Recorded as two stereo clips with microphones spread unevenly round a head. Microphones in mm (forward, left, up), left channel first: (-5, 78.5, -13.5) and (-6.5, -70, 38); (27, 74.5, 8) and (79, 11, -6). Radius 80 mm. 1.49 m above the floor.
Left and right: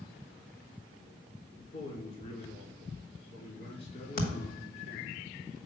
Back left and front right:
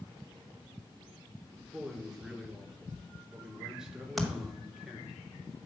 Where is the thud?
50° left, 1.7 m.